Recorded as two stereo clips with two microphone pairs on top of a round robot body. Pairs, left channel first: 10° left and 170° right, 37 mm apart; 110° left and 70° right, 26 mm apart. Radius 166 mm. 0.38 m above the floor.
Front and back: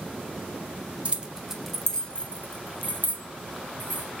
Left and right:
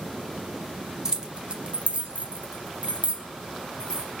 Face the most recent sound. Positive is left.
turn(degrees=-20)